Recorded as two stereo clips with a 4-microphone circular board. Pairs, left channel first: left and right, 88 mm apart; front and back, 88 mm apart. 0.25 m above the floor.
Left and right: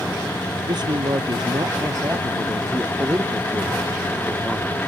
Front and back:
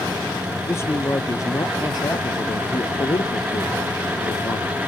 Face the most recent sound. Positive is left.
turn(degrees=-5)